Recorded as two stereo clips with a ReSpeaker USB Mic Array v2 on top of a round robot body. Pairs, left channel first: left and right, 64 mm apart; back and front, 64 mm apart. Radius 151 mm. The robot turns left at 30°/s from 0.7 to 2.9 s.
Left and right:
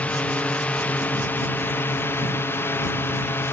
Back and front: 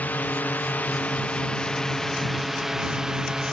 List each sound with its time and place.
0.0 s a drone: 140° left; by 3.5 s 80° left